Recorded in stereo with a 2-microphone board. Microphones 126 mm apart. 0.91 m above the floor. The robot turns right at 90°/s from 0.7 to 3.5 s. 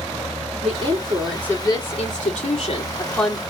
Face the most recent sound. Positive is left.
turn(degrees=-160)